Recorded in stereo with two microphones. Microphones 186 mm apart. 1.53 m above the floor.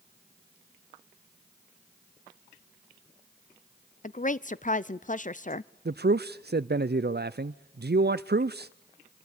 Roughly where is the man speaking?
Right.